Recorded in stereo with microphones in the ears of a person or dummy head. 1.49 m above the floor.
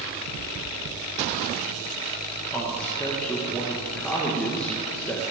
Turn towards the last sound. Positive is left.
turn(degrees=10)  # may be behind; listen again after turning